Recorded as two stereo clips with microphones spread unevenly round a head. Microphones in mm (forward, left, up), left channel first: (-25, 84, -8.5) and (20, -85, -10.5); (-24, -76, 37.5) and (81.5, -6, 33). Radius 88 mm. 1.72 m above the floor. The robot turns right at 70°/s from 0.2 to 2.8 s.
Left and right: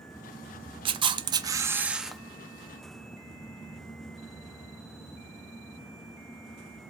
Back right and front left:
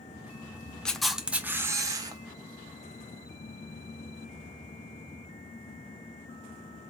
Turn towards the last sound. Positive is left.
turn(degrees=65)